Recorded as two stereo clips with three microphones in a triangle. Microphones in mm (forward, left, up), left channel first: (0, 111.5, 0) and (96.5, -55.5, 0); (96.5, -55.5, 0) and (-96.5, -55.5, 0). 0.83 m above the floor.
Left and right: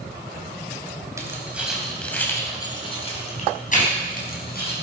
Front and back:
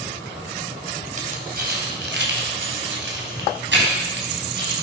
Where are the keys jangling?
135° right, 3 m; by 4.7 s 150° left, 4.5 m.